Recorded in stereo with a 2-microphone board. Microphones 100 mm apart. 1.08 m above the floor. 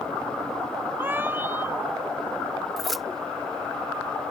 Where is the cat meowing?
20° right (ahead or behind).